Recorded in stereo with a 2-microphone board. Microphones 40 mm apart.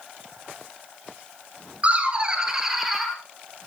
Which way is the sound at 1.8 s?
35° right (ahead or behind).